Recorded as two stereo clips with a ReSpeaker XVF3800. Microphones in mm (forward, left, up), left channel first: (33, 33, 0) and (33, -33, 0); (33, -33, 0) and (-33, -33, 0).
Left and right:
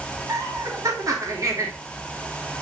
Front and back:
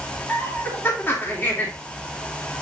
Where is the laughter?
60° right, 3 m.